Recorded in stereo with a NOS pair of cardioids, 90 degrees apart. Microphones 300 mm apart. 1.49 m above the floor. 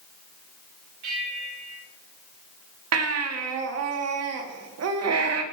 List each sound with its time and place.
1.0 s a bell: 65° right, 4.5 m
2.9 s a baby crying: 55° right, 1.9 m